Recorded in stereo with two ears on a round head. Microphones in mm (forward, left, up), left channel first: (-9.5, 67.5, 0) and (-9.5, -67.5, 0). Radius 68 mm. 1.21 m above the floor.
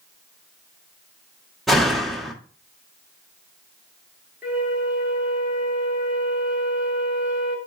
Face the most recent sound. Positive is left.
turn(degrees=-10)  # may be behind; listen again after turning